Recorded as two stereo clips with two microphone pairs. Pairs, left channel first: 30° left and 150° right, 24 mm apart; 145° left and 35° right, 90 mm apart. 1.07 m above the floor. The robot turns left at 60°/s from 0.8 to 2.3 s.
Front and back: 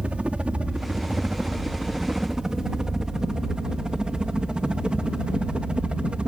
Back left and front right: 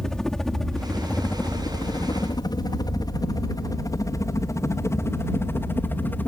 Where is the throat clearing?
I don't hear throat clearing.